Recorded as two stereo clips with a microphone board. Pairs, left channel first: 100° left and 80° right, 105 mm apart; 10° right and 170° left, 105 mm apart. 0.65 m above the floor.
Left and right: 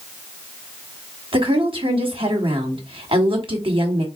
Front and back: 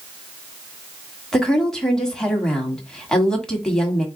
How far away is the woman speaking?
About 1.5 m.